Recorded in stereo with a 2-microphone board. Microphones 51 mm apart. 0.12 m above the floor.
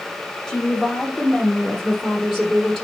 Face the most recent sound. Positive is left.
turn(degrees=0)  # may be behind; listen again after turning